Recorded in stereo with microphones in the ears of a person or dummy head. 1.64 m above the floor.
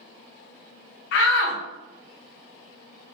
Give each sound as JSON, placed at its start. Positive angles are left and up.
{"t": 1.1, "sound": "a shout", "side_deg": 60, "distance_m": 0.5}